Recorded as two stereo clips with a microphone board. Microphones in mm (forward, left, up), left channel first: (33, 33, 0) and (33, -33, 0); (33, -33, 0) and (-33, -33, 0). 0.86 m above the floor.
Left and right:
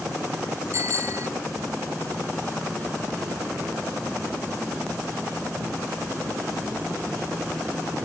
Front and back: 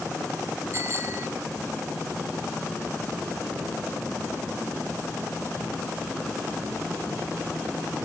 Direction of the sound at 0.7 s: 130° right.